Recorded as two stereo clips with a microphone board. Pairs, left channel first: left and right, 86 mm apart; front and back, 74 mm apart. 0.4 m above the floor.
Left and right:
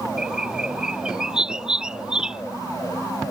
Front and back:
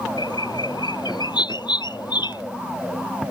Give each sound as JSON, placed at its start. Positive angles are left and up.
{"t": 0.2, "sound": "a bird", "azimuth_deg": -10}